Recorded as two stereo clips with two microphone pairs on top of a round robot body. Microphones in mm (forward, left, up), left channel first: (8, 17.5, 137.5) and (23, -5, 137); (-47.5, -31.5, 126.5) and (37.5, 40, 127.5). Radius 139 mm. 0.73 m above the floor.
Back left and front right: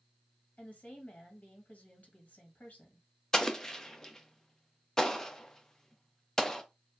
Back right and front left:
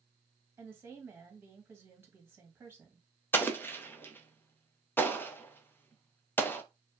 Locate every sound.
0.6 s a woman speaking: 105° left, 1.6 m
3.3 s an explosion: 175° left, 0.8 m